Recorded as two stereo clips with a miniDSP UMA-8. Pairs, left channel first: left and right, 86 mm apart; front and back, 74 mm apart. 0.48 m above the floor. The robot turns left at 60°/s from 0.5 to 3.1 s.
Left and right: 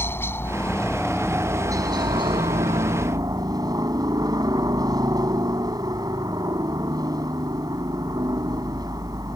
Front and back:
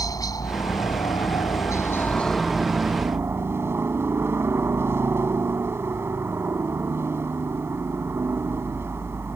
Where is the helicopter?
30° left; by 9.4 s 125° right.